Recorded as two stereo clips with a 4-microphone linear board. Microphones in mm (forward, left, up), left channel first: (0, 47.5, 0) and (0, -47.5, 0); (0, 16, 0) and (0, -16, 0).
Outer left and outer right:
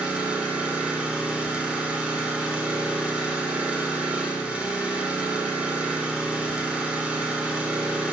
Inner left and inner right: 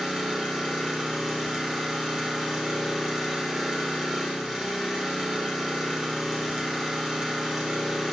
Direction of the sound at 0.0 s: 15° right (ahead or behind).